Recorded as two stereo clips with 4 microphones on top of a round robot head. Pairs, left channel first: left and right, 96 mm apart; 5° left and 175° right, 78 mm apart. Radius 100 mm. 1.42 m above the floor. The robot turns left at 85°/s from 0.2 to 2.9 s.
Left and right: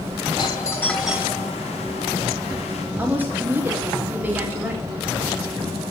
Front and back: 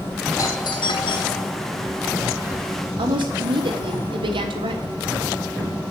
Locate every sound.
0.4 s a doorbell: 55° left, 2.5 m; by 1.5 s 45° right, 2.5 m
3.0 s a woman speaking: 165° right, 3 m